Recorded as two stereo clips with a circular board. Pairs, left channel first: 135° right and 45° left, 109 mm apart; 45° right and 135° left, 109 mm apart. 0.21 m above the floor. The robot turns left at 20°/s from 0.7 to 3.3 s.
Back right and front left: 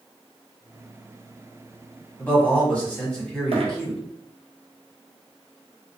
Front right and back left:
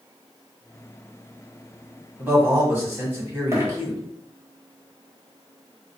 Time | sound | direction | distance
2.2 | a man speaking | straight behind | 1.1 m
3.5 | a dropped coin | 70° left | 0.8 m